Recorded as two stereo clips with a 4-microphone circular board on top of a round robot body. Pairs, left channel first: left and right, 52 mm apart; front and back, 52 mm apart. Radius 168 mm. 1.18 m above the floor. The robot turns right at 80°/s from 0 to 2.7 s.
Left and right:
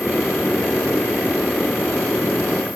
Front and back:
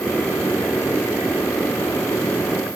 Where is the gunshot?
No gunshot in this recording.